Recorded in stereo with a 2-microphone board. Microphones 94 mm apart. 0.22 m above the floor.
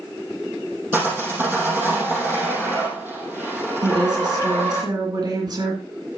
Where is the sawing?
25° right (ahead or behind), 4.5 m.